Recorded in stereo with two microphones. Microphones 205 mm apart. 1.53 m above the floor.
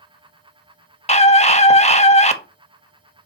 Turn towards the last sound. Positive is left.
turn(degrees=35)  # may be behind; listen again after turning